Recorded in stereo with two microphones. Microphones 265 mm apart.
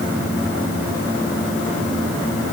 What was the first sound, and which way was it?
Only background noise.